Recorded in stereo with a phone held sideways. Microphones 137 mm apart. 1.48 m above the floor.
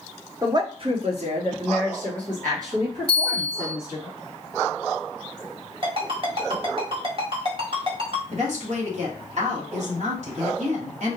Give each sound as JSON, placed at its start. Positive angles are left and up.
{"t": 0.4, "sound": "a woman speaking", "side_deg": -25, "distance_m": 0.7}
{"t": 3.1, "sound": "a bell", "side_deg": -40, "distance_m": 2.0}
{"t": 5.8, "sound": "a ringtone", "side_deg": -45, "distance_m": 1.4}
{"t": 8.3, "sound": "a woman speaking", "side_deg": -60, "distance_m": 1.7}